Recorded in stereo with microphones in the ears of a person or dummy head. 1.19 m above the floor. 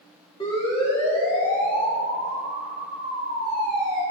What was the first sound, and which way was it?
A siren, 25° left (ahead or behind).